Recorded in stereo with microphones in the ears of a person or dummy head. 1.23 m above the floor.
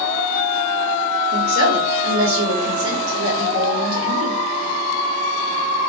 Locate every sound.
1.3 s a woman speaking: 80° right, 1.7 m